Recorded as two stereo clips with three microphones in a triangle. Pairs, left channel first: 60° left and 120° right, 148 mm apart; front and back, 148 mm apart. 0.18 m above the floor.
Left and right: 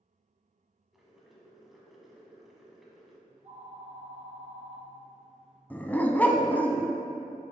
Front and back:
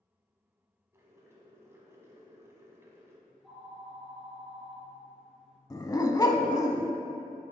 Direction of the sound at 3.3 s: 95° right.